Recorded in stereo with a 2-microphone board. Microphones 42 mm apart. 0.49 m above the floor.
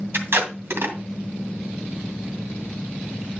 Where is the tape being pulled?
55° right (ahead or behind), 2 m.